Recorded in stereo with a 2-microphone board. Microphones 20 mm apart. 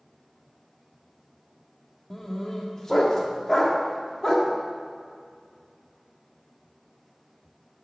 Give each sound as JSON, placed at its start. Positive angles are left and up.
{"t": 2.1, "sound": "a dog barking", "side_deg": 30, "distance_m": 1.5}